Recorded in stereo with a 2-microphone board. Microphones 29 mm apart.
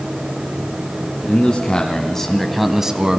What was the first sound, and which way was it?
A man speaking, 35° left (ahead or behind).